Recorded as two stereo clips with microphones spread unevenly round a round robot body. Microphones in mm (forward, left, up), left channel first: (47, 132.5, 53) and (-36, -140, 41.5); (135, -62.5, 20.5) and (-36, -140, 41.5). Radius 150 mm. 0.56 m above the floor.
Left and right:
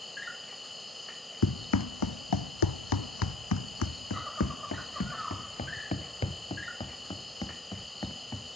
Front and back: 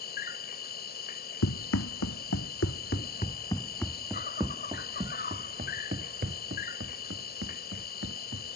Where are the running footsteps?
35° left; by 8.6 s 155° left.